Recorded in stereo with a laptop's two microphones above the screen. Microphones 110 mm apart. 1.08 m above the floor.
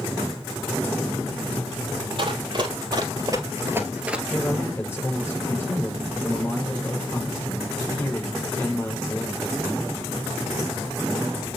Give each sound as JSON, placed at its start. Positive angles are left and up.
{"t": 2.2, "sound": "running footsteps", "side_deg": -50, "distance_m": 2.0}
{"t": 4.3, "sound": "a man speaking", "side_deg": 20, "distance_m": 5.5}